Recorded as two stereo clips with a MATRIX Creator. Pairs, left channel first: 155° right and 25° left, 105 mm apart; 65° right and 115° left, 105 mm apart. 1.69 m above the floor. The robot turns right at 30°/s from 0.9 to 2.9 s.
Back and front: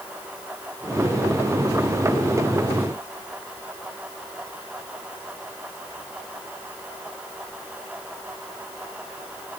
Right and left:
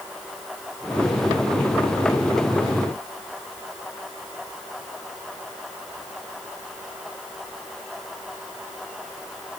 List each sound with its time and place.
Only background noise.